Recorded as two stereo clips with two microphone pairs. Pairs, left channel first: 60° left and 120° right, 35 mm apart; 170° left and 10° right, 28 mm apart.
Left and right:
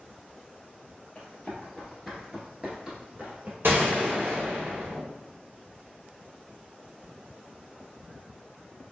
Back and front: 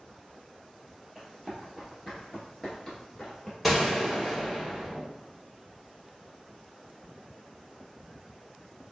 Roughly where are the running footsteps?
Left.